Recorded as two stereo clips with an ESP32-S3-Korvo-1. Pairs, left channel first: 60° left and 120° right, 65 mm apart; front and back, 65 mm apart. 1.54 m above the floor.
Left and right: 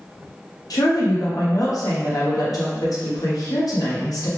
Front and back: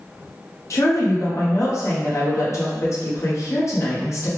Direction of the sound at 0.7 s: 40° left.